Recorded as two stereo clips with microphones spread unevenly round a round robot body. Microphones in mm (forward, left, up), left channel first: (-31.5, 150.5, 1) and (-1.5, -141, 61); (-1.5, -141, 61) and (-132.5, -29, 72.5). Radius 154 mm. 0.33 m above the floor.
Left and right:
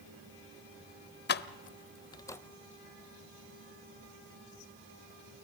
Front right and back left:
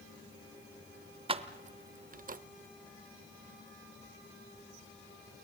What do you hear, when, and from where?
1.3 s keys jangling: 90° left, 0.8 m; by 2.4 s 170° left, 0.9 m